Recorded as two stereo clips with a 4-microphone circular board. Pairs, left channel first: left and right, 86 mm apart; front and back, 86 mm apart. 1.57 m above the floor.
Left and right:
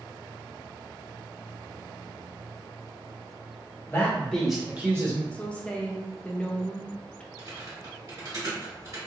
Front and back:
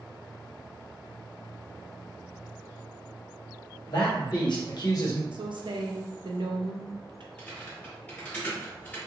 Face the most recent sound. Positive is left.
turn(degrees=-65)